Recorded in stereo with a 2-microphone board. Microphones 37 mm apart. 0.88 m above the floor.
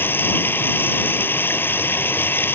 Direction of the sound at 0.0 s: 70° left (ahead or behind).